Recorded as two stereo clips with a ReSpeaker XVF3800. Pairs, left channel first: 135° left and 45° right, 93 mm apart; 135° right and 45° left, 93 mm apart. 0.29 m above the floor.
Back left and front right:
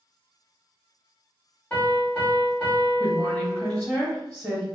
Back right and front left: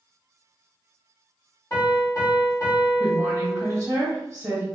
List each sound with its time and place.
1.7 s a piano: 160° right, 1.7 m
3.0 s a woman speaking: 45° left, 1.2 m